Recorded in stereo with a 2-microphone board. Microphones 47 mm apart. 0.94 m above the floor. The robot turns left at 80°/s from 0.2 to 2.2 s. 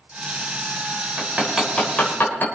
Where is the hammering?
40° right (ahead or behind), 4 m; by 2.5 s 45° left (ahead or behind), 4 m.